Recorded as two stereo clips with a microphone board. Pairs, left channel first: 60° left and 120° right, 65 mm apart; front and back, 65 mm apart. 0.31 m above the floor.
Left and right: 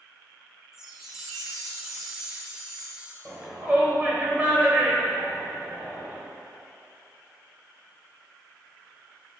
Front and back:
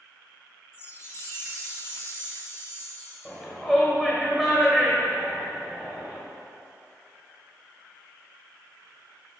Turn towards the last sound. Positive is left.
turn(degrees=-90)